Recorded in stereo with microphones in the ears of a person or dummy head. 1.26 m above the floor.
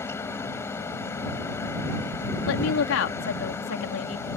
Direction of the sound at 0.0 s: 15° left (ahead or behind).